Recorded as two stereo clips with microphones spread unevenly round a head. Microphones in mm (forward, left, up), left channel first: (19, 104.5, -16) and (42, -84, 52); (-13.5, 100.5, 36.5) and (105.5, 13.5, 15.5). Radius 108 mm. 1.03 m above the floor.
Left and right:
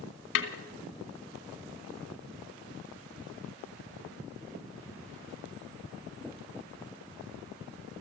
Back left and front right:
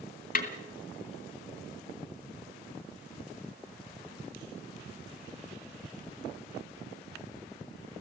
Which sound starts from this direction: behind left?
A snare drum, at 0.3 s.